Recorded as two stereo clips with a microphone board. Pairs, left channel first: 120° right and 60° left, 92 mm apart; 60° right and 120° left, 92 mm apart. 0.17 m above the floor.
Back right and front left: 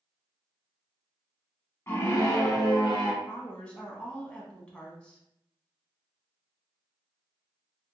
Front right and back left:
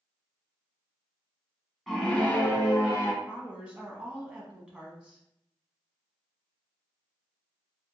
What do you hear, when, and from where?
1.9 s a scream: 145° right, 1.1 m; by 3.1 s 105° right, 1.9 m
3.2 s a woman speaking: straight behind, 1.0 m